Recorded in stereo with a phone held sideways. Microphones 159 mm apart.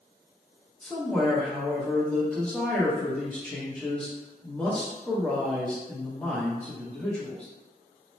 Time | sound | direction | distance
0.8 | a man speaking | 5° left (ahead or behind) | 0.9 m